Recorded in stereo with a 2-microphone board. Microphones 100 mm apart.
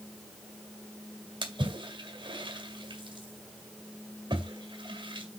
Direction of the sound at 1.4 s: 60° right (ahead or behind).